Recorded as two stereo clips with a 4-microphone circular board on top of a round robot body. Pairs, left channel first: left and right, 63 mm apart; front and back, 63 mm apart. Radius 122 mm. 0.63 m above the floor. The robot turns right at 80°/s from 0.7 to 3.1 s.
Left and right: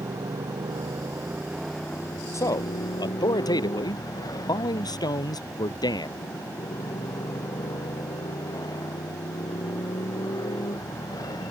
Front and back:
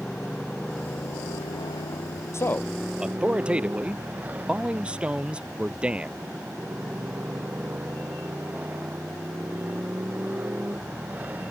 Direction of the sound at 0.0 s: 80° right.